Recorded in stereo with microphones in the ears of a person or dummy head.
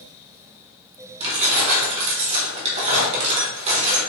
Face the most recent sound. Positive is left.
turn(degrees=-35)  # may be behind; listen again after turning